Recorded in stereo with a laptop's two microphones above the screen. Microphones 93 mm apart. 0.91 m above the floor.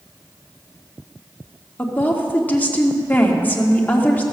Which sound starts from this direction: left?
A woman speaking, at 1.8 s.